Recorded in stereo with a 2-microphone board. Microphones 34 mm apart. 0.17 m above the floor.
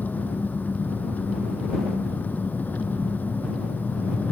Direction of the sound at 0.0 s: 55° left (ahead or behind).